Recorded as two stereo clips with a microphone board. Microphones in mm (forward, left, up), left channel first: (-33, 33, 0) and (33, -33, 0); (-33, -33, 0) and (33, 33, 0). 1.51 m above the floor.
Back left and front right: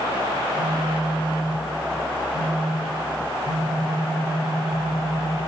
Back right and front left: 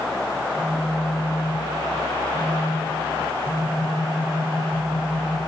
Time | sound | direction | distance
0.4 | a phone buzzing | 25° right | 8.5 m